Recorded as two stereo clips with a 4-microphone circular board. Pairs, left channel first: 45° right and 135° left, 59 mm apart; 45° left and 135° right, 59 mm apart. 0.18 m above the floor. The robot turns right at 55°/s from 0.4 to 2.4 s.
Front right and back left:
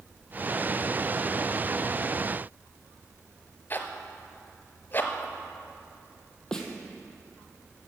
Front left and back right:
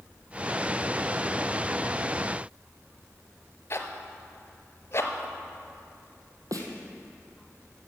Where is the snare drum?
125° right, 1.3 m.